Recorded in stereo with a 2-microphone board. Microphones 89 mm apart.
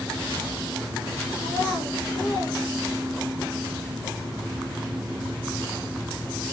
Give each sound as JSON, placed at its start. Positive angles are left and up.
{"t": 1.4, "sound": "a child speaking", "side_deg": 45, "distance_m": 2.5}